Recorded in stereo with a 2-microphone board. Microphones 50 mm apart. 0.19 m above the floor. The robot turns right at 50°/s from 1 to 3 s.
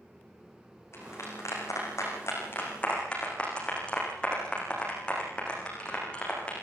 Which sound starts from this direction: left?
A clap, at 0.9 s.